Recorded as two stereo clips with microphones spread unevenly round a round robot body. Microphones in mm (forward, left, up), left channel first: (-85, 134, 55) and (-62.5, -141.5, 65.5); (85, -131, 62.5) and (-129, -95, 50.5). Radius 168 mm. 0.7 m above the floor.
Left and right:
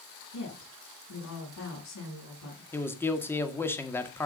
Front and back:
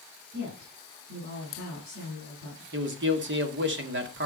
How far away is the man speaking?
About 1.9 m.